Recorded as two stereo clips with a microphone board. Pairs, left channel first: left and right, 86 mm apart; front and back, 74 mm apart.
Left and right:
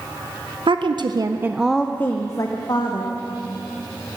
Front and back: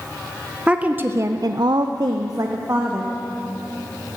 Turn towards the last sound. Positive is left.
turn(degrees=130)